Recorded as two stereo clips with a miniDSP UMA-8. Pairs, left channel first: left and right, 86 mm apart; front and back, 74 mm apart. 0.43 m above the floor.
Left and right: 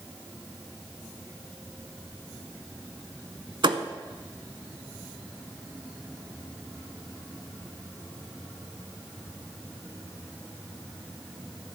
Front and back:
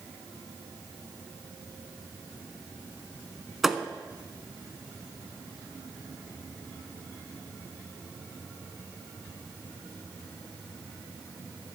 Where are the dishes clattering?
No dishes clattering in this recording.